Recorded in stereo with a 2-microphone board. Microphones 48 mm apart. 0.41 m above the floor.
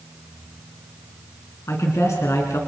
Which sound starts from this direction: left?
A man speaking, at 1.7 s.